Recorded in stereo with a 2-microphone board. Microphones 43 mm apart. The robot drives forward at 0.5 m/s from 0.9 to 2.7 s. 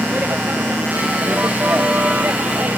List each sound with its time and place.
0.0 s a vehicle: 50° right (ahead or behind); by 2.8 s 45° right (ahead or behind)